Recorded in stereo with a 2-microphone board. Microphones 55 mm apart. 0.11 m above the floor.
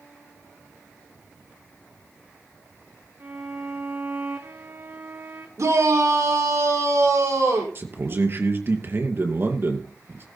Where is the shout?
65° right (ahead or behind), 5.5 m.